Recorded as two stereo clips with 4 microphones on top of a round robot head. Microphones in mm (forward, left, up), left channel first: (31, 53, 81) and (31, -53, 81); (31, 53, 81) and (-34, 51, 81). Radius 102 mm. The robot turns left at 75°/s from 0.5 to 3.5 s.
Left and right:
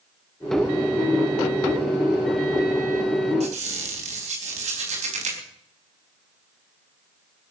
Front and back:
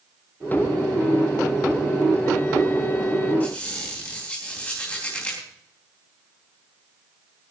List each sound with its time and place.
3.4 s a squeak: 70° right, 4 m; by 5.4 s 75° right, 4 m